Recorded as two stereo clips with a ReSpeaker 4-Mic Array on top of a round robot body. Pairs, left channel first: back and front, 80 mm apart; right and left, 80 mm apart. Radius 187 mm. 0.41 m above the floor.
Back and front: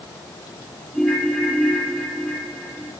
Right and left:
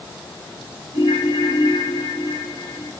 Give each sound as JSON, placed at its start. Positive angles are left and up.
{"t": 0.9, "sound": "a ringtone", "azimuth_deg": -110, "distance_m": 8.5}